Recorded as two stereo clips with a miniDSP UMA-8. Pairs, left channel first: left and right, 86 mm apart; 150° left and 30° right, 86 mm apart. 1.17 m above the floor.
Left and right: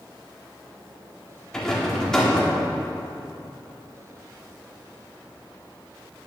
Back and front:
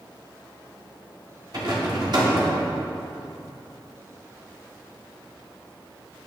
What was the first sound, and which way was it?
A rattle, 5° left.